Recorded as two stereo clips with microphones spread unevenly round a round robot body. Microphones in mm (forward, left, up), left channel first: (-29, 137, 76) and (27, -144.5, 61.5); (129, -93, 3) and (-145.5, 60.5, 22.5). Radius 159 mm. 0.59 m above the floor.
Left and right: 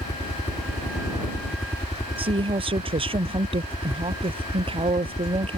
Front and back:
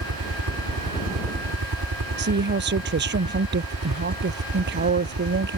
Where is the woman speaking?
150° right.